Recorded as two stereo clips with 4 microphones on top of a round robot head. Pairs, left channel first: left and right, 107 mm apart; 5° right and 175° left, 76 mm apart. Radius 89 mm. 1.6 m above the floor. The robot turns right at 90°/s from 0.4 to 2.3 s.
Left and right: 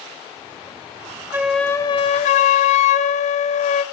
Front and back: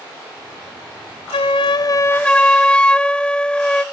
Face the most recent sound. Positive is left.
turn(degrees=70)